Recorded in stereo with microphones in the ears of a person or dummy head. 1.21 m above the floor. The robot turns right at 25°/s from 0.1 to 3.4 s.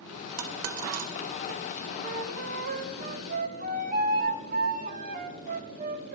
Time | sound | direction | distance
0.4 | a dropped coin | 70° right (ahead or behind) | 1.6 m
2.0 | a flute | 90° right | 1.0 m